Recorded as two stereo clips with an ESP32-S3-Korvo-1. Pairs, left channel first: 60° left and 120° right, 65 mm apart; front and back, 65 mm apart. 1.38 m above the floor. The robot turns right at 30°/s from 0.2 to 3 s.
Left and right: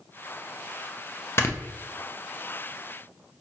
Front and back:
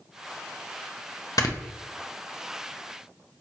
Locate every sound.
1.4 s snoring: 15° left, 0.6 m; by 1.6 s 20° left, 0.6 m